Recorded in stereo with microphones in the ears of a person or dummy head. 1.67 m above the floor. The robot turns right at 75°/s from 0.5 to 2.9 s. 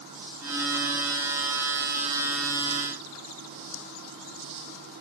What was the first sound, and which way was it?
Only background noise.